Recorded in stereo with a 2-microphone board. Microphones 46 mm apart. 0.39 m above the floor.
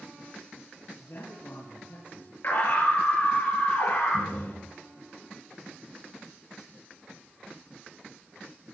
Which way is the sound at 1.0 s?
55° left (ahead or behind).